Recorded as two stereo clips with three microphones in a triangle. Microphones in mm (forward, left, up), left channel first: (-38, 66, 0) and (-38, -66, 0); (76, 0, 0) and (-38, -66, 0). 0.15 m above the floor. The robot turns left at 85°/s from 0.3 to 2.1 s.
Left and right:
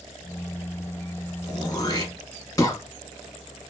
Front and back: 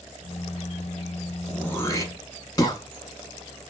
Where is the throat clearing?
105° left, 0.7 m; by 2.8 s 55° left, 0.7 m.